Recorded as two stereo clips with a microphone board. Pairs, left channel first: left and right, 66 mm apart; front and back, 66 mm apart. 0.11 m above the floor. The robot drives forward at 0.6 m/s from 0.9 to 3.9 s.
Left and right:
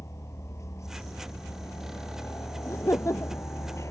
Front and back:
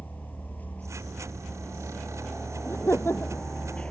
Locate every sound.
0.0 s a helicopter: 60° left; by 3.9 s 70° left
2.6 s laughter: 50° left; by 3.5 s 55° left